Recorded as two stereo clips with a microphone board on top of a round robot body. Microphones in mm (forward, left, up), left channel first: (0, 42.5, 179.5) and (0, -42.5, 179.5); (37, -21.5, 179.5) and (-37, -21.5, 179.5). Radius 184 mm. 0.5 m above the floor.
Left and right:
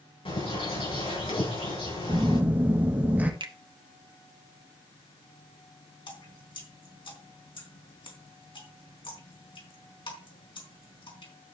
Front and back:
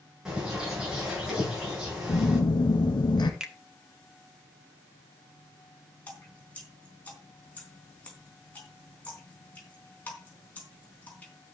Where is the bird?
100° left, 8.5 m.